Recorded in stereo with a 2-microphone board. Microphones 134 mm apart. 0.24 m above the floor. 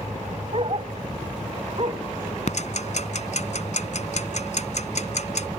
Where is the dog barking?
45° right (ahead or behind).